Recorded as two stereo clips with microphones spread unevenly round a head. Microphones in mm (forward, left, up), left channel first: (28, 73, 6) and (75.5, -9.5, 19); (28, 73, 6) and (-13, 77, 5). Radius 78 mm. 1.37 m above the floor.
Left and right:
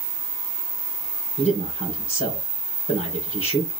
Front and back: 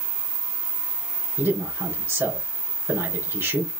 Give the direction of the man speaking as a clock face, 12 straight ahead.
7 o'clock.